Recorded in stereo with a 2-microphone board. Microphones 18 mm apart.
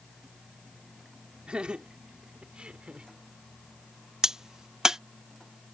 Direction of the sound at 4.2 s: 30° right (ahead or behind).